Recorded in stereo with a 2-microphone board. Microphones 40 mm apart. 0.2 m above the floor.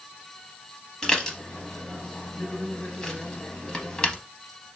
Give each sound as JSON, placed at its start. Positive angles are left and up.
{"t": 1.0, "sound": "dishes clattering", "side_deg": 15, "distance_m": 0.7}